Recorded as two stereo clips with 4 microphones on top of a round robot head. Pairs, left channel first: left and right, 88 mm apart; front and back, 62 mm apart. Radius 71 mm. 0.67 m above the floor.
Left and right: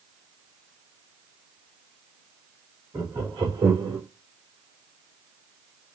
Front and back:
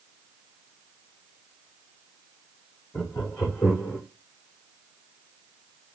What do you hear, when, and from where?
2.9 s laughter: 60° right, 3 m; by 4.0 s 65° right, 1.9 m